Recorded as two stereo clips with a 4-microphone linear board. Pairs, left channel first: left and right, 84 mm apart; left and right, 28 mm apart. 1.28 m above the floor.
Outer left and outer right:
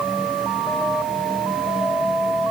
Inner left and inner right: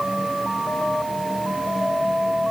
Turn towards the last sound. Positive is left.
No sound to turn to.